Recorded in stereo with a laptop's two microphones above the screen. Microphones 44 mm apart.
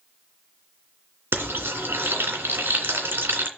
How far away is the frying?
About 2.5 m.